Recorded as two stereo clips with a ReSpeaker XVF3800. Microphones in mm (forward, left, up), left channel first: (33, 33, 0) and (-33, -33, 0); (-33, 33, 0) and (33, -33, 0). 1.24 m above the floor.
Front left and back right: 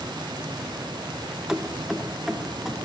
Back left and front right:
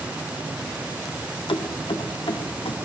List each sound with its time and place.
1.5 s keys jangling: 140° left, 0.7 m